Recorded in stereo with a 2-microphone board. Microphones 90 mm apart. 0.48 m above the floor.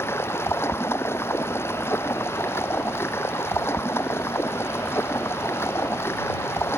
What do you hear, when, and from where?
0.0 s running water: 25° left (ahead or behind)